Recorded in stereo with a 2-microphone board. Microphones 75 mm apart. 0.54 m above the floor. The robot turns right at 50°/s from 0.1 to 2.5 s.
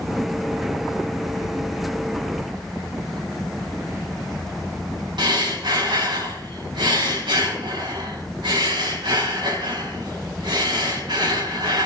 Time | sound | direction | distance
5.2 | breathing | 80° right | 4.5 m